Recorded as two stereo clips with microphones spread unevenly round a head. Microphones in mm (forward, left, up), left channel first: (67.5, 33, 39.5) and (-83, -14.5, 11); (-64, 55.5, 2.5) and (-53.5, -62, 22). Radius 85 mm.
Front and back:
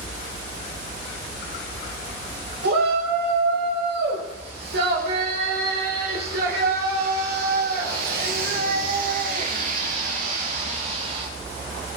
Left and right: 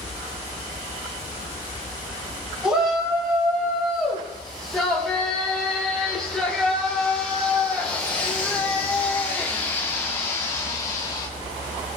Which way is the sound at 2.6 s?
165° right.